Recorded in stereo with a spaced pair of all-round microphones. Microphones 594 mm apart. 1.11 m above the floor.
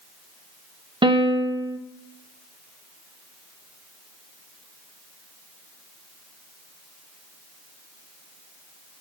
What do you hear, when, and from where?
1.0 s a piano: 10° right (ahead or behind), 1.0 m